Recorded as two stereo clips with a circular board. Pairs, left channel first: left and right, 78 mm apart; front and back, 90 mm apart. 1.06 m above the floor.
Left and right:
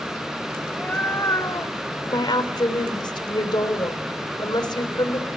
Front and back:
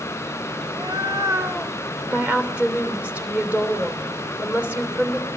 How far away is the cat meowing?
About 1.3 m.